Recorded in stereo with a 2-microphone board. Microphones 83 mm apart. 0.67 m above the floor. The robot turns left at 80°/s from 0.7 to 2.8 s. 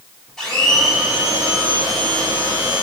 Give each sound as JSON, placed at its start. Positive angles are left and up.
{"t": 0.4, "sound": "a blender", "azimuth_deg": 10, "distance_m": 3.0}